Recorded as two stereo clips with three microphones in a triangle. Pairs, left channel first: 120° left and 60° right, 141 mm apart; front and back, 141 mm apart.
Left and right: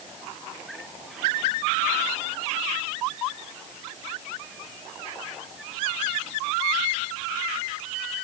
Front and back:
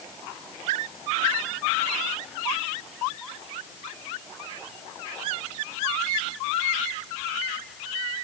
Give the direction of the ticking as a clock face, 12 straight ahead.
I don't hear ticking.